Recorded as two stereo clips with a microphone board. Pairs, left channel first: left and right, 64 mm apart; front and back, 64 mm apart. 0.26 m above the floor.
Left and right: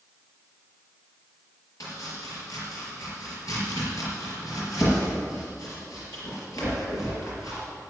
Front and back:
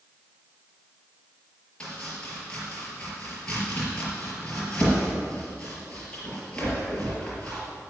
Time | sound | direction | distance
1.8 | chopping | 70° left | 5 m